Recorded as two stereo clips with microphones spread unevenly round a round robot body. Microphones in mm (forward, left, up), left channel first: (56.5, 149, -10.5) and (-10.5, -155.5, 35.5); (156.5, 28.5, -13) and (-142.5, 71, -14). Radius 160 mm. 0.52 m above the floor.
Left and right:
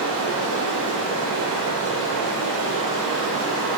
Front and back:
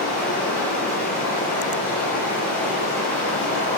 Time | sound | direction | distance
0.0 | running water | 85° right | 1.1 m